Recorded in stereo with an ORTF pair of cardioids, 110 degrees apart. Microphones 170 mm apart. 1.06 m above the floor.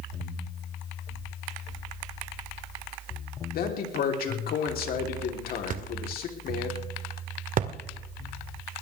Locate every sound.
3.5 s a man speaking: 65° left, 3.5 m
5.7 s a thud: 55° right, 1.9 m